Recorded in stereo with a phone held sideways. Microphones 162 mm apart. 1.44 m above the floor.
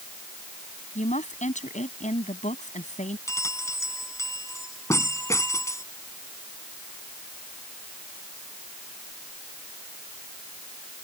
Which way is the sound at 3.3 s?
20° left (ahead or behind).